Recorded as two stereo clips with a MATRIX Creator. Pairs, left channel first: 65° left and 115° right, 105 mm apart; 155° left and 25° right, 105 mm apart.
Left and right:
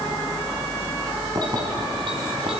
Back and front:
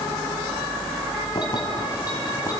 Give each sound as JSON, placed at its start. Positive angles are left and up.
{"t": 1.4, "sound": "keys jangling", "azimuth_deg": -160, "distance_m": 3.0}